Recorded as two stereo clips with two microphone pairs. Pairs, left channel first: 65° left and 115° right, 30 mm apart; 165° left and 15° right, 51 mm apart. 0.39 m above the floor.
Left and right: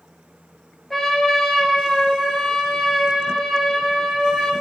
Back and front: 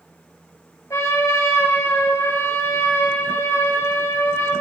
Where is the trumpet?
150° left, 2.5 m.